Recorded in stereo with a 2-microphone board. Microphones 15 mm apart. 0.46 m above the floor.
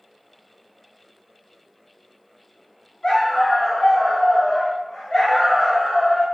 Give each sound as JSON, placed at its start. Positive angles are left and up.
{"t": 3.0, "sound": "a dog barking", "side_deg": 55, "distance_m": 1.0}